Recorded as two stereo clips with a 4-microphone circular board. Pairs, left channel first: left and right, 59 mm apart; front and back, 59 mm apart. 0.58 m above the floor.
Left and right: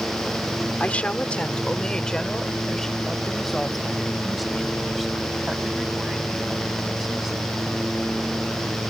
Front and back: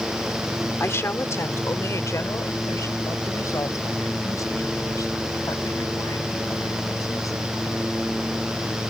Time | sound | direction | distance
0.8 | a woman speaking | 30° left | ?